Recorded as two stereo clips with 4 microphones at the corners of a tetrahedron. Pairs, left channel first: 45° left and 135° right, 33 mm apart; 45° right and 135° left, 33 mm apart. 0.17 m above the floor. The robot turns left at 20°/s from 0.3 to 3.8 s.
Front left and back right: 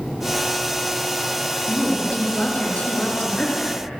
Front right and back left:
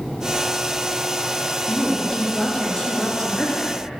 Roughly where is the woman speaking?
Ahead left.